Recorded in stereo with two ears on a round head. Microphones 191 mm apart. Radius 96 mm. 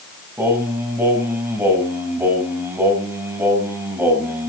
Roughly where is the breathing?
No breathing in this recording.